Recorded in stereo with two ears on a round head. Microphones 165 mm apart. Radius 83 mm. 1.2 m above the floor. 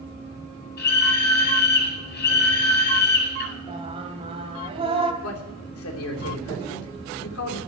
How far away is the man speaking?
About 3 m.